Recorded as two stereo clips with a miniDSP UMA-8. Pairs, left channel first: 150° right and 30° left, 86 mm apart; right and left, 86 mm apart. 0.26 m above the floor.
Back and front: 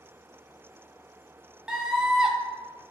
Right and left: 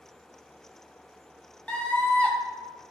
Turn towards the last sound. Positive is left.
turn(degrees=-45)